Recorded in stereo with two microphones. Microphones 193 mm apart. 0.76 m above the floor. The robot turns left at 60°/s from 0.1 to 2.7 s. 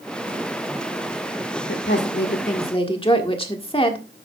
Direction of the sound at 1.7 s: 90° left.